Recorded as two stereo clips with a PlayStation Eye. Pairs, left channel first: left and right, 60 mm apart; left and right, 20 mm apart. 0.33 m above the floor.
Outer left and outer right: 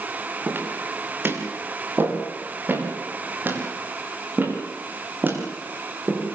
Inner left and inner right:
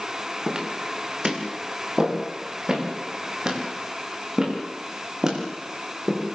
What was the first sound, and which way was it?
Footsteps, 35° right (ahead or behind).